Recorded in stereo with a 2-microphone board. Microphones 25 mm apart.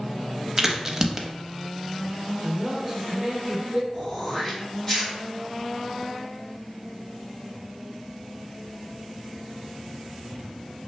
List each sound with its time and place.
0.6 s a crack: 15° right (ahead or behind), 0.5 m
2.4 s a man speaking: 25° right (ahead or behind), 0.9 m
3.9 s throat clearing: 25° left (ahead or behind), 1.9 m